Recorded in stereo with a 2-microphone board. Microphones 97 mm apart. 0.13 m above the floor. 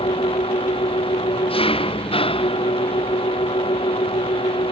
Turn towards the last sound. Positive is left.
turn(degrees=75)  # may be behind; listen again after turning